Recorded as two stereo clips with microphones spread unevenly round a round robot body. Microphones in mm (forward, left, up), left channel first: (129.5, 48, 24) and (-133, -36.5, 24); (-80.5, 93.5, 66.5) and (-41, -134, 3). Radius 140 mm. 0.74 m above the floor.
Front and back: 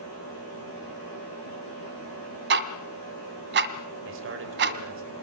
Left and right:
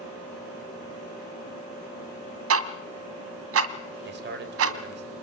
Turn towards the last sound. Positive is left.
turn(degrees=-115)